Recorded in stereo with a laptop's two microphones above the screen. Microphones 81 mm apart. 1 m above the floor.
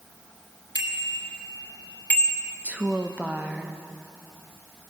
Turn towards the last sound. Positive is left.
turn(degrees=-15)  # may be behind; listen again after turning